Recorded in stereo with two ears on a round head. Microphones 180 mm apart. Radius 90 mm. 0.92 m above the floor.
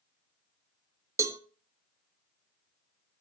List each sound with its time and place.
1.2 s a cowbell: 15° right (ahead or behind), 0.7 m